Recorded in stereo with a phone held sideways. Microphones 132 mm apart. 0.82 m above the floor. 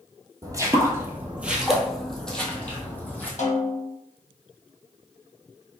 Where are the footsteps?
25° right (ahead or behind), 0.9 m; by 3.3 s 15° left (ahead or behind), 1.3 m.